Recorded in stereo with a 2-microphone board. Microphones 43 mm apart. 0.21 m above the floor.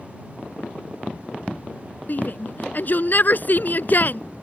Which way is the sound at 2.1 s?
50° left (ahead or behind).